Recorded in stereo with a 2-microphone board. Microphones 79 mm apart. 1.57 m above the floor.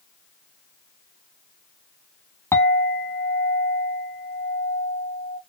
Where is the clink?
30° left (ahead or behind), 1.8 m.